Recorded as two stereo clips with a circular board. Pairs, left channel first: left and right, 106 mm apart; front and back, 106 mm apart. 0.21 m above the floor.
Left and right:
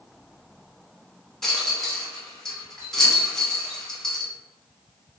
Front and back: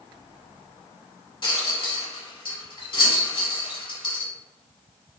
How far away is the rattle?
About 1.0 m.